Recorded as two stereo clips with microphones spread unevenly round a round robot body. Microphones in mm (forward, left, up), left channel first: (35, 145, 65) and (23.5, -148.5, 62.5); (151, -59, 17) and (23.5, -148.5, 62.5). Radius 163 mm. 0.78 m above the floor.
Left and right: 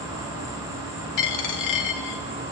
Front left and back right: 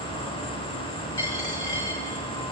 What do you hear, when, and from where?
0.0 s an insect: 170° right, 7 m
1.2 s a dropped coin: 115° left, 1.2 m